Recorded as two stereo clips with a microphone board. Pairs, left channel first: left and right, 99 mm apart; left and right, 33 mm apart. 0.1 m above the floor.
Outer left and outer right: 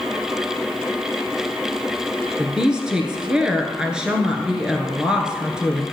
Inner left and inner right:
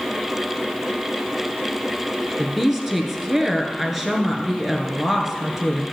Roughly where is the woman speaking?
Centre.